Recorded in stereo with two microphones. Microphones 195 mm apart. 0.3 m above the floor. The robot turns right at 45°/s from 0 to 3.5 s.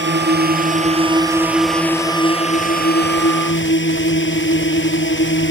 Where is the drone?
75° right; by 5.5 s 80° left.